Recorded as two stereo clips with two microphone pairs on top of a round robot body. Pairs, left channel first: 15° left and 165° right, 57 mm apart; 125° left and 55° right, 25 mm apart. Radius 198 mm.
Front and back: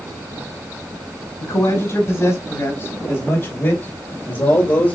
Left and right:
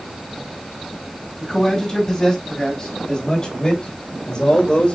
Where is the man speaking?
45° left, 5 m; by 5.0 s 65° left, 3 m.